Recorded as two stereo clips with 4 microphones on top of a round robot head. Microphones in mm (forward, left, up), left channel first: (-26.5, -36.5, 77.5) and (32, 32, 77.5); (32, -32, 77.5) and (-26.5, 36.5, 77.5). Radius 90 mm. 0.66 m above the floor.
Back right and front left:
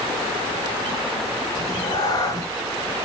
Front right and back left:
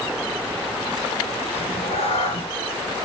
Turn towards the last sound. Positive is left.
turn(degrees=-80)